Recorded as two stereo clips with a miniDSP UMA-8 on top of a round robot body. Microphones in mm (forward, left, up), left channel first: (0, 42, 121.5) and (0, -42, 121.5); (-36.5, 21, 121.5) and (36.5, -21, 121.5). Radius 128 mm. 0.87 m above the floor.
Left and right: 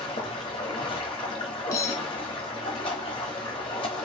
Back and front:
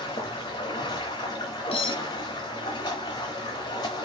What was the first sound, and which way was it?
Running water, 110° left.